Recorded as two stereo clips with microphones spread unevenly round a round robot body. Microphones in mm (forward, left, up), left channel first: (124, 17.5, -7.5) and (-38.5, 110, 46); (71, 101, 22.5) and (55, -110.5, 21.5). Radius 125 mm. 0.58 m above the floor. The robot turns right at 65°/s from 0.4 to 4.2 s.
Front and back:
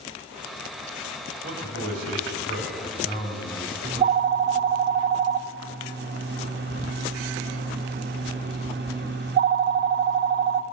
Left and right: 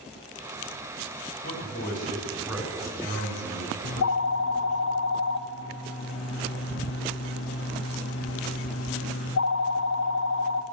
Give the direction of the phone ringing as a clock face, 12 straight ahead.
9 o'clock.